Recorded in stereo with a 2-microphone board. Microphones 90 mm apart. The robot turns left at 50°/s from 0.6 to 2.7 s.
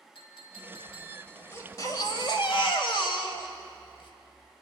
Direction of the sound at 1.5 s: 150° left.